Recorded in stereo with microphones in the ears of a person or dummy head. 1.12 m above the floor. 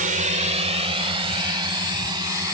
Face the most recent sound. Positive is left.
turn(degrees=-20)  # may be behind; listen again after turning